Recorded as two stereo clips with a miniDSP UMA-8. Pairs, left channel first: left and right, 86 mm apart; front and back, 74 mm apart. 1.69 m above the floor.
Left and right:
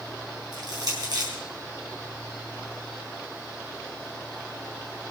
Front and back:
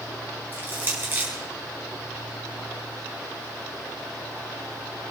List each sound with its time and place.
0.5 s crushing: 120° right, 5 m